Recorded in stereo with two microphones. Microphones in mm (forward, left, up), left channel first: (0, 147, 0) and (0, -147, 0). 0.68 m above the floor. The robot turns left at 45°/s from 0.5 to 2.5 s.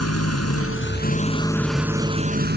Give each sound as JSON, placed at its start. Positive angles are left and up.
{"t": 0.0, "sound": "an engine running", "azimuth_deg": 55}